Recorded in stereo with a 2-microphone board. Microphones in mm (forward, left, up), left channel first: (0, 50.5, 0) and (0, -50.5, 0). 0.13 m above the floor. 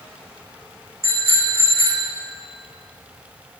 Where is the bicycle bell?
75° right (ahead or behind), 6 m.